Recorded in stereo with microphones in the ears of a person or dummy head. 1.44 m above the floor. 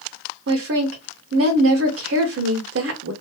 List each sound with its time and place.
0.5 s a woman speaking: 65° right (ahead or behind), 0.9 m